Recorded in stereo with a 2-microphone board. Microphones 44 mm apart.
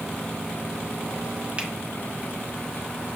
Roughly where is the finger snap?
Right.